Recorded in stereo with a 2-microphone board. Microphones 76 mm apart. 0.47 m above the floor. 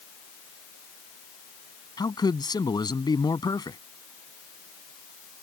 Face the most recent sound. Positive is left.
turn(degrees=65)  # may be behind; listen again after turning